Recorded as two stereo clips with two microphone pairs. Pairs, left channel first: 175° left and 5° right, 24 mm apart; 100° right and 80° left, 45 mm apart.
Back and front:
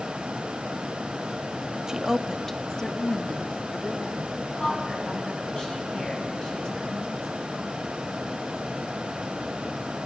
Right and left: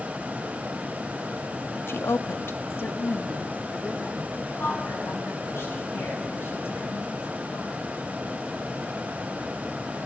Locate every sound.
1.9 s a woman speaking: 70° right, 1.1 m; by 4.2 s 165° right, 2.5 m
4.3 s a woman speaking: 130° right, 8.5 m